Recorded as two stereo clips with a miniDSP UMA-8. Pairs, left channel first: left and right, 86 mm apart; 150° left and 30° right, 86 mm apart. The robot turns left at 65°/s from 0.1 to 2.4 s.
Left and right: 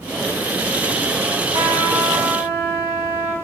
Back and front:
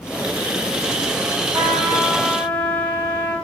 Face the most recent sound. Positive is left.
turn(degrees=-145)